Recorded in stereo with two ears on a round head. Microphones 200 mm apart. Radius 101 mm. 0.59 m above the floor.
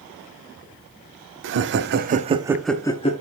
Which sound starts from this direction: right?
Laughter, at 1.4 s.